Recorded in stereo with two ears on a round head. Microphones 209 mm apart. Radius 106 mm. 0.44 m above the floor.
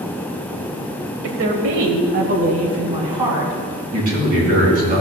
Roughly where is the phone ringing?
No phone ringing in this recording.